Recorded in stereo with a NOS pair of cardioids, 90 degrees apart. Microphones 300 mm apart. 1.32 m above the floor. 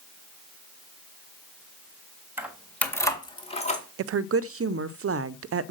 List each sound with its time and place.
2.4 s keys jangling: 5° right, 1.5 m; by 3.8 s 25° left, 2 m
4.0 s a woman speaking: 50° right, 0.6 m